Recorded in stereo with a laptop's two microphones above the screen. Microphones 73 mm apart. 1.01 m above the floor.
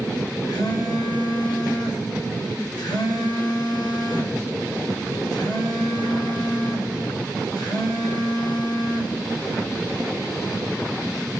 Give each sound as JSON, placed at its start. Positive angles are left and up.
{"t": 0.5, "sound": "a phone buzzing", "side_deg": 70, "distance_m": 1.4}